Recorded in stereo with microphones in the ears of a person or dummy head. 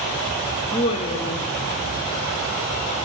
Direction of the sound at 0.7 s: 25° left (ahead or behind).